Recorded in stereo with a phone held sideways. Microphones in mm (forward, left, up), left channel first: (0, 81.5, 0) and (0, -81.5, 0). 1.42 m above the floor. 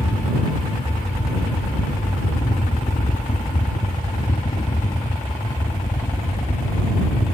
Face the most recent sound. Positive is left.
turn(degrees=70)  # may be behind; listen again after turning